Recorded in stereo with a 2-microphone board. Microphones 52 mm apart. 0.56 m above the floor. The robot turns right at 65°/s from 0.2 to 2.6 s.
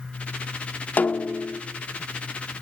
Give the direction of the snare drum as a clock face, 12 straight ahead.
8 o'clock.